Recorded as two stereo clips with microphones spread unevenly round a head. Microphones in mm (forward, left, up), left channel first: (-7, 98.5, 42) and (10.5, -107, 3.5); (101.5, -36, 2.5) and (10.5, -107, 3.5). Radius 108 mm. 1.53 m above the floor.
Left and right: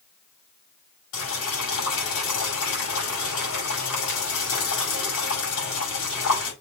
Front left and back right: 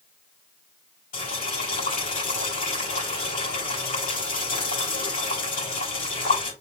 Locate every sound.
1.1 s boiling: 65° left, 5.5 m